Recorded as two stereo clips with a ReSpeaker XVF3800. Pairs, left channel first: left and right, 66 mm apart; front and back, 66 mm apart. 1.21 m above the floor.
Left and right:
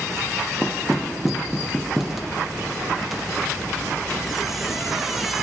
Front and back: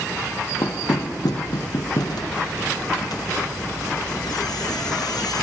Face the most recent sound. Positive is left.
turn(degrees=-5)